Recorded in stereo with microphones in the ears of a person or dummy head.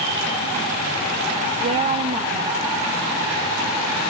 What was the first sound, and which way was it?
A woman speaking, 30° right (ahead or behind).